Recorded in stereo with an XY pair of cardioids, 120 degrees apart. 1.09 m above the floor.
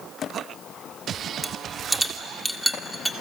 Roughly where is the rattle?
Ahead.